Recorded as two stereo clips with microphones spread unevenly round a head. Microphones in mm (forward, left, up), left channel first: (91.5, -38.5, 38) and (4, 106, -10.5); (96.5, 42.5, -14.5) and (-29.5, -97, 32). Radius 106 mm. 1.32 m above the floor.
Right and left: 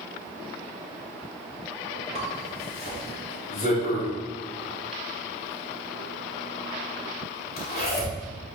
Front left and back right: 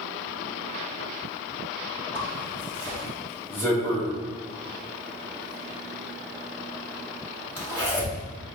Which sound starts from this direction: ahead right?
A zipper, at 2.1 s.